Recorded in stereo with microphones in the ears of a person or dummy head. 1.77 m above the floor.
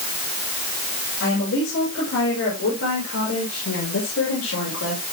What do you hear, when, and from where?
1.2 s a woman speaking: 75° left (ahead or behind), 8 m; by 5.0 s 85° left, 7 m